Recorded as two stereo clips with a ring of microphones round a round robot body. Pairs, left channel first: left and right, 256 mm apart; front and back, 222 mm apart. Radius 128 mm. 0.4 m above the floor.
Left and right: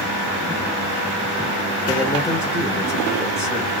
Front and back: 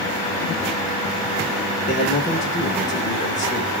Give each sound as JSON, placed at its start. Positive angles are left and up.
{"t": 1.9, "sound": "a man speaking", "azimuth_deg": 20, "distance_m": 0.9}